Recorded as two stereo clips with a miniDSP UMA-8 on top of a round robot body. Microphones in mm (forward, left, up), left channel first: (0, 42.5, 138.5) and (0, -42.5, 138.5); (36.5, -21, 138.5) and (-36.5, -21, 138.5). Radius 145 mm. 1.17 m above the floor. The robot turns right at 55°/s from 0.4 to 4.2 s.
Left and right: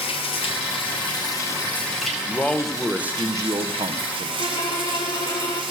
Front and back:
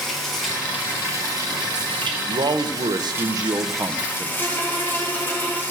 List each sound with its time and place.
0.0 s running water: 90° left, 1.2 m; by 5.7 s 60° right, 1.2 m
2.3 s a man speaking: 155° left, 1.0 m; by 4.3 s 100° right, 1.0 m
4.4 s a violin: 60° left, 4 m